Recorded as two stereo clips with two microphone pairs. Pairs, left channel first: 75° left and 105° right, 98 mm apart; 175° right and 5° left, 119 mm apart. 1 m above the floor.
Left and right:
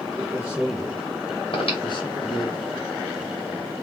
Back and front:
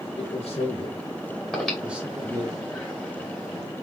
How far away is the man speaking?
About 1.2 m.